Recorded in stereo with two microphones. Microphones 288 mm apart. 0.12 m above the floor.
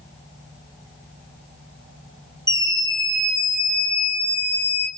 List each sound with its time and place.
2.5 s a scream: 15° left (ahead or behind), 7.5 m; by 4.9 s 20° left (ahead or behind), 6.5 m